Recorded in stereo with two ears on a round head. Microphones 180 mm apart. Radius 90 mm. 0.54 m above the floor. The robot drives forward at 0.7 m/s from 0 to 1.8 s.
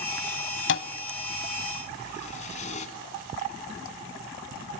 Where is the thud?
65° left (ahead or behind), 1.1 m; by 2.9 s 40° left (ahead or behind), 1.6 m.